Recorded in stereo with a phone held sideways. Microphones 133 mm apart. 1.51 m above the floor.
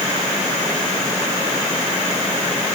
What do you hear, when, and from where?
Only background noise.